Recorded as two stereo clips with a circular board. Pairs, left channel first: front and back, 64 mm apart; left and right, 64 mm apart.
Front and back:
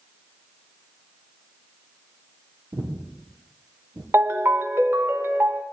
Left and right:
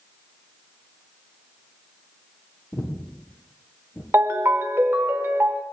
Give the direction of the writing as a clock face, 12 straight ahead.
No writing in this recording.